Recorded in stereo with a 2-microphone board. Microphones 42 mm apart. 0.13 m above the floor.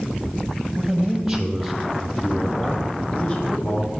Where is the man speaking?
15° right (ahead or behind), 4 m; by 3.9 s 30° left (ahead or behind), 5.5 m.